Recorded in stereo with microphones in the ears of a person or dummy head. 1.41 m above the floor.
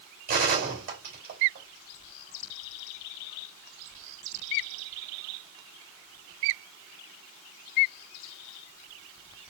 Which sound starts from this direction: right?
A gunshot, at 0.3 s.